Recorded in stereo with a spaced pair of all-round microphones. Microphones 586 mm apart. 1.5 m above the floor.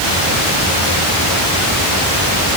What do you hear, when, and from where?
Only background noise.